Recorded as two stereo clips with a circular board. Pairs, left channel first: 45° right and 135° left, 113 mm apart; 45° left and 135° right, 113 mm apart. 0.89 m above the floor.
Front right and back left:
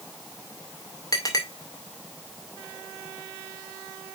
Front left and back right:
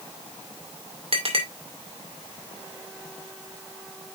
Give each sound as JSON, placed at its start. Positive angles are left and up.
{"t": 1.1, "sound": "a clink", "azimuth_deg": -105, "distance_m": 2.5}